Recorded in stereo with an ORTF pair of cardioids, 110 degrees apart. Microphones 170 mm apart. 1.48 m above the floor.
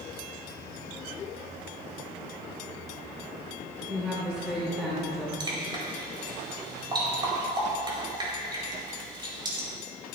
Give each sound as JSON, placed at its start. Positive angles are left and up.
{"t": 3.9, "sound": "a woman speaking", "azimuth_deg": -5, "distance_m": 3.5}
{"t": 5.4, "sound": "dripping", "azimuth_deg": -25, "distance_m": 4.5}